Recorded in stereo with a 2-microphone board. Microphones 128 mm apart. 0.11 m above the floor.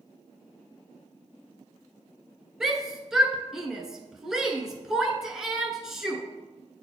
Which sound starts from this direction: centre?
A shout, at 2.6 s.